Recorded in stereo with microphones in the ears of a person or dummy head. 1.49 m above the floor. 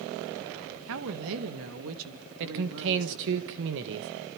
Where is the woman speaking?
70° right (ahead or behind), 1.9 m; by 3.4 s 80° right, 3.5 m.